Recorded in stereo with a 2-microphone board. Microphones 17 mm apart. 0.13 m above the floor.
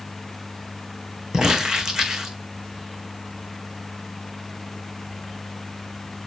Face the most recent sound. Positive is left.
turn(degrees=-50)  # may be behind; listen again after turning